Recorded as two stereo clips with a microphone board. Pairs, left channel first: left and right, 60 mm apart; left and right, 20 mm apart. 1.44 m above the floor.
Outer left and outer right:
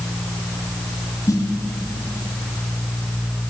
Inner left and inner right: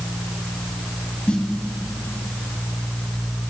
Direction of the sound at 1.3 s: 65° left (ahead or behind).